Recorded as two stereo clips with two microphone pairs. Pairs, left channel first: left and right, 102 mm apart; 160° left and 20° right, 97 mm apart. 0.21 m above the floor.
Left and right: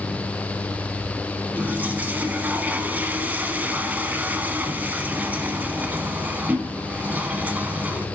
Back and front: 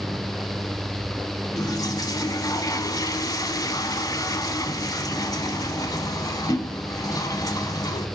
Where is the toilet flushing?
155° right, 0.6 m.